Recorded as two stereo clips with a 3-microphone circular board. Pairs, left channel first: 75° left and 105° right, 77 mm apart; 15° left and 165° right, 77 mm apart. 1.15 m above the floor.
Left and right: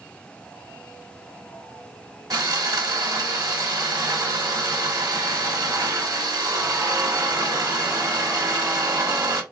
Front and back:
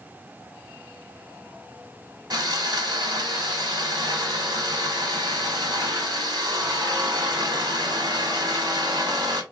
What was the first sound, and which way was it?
Sawing, 135° right.